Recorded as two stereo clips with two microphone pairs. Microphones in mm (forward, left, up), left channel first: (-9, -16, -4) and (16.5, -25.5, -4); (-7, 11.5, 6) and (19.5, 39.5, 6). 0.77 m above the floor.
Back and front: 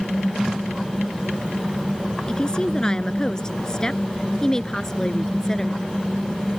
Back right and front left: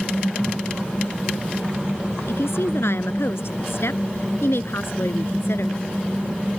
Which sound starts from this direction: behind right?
A woman speaking, at 2.3 s.